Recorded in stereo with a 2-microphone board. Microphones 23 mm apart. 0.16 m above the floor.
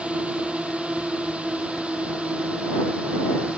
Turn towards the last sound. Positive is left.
turn(degrees=-70)  # may be behind; listen again after turning